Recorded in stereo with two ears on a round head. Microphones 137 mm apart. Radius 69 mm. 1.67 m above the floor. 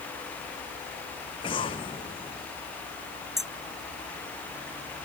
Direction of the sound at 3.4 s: Centre (ahead or behind).